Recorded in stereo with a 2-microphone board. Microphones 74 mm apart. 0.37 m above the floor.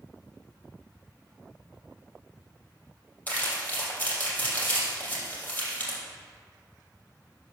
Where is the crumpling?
20° left (ahead or behind), 3 m.